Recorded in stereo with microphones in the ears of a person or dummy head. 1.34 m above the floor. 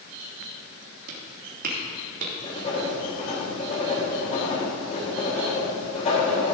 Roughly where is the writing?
Left.